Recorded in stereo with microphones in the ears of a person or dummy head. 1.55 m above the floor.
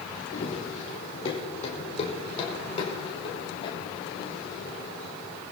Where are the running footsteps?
35° left (ahead or behind), 4 m; by 5.4 s 30° left (ahead or behind), 7 m.